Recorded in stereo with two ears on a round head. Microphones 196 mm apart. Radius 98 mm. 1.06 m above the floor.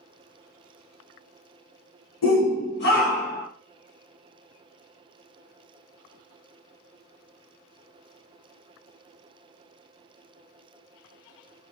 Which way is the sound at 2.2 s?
65° left (ahead or behind).